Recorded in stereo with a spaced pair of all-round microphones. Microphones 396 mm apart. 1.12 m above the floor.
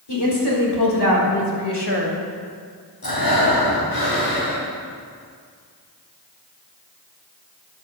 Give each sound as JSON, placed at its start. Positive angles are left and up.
{"t": 0.1, "sound": "a woman speaking", "side_deg": 80, "distance_m": 3.5}
{"t": 3.0, "sound": "breathing", "side_deg": 60, "distance_m": 3.0}